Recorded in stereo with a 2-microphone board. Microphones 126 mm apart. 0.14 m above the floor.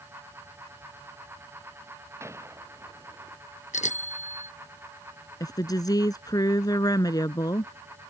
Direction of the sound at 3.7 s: 75° left (ahead or behind).